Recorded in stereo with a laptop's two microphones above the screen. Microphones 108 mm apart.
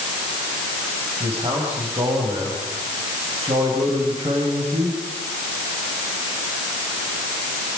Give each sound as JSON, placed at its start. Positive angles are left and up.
{"t": 1.2, "sound": "a man speaking", "side_deg": -65, "distance_m": 5.5}